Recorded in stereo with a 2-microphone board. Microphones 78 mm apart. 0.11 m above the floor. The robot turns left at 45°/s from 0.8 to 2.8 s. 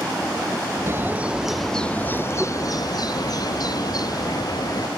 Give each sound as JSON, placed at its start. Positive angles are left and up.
{"t": 0.9, "sound": "a bird", "azimuth_deg": -150}